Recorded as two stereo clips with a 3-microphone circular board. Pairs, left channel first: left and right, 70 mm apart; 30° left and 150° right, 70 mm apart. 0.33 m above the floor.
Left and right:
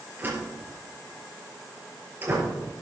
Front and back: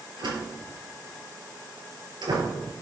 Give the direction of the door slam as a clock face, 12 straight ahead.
5 o'clock.